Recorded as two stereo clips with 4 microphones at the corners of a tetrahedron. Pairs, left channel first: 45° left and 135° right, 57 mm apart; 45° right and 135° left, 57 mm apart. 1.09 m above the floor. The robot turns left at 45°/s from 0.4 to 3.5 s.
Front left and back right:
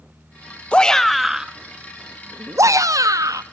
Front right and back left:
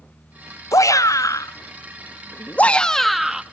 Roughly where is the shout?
Ahead right.